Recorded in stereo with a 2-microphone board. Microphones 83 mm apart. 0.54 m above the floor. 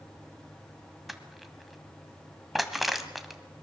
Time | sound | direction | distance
1.1 | crushing | centre (ahead or behind) | 1.7 m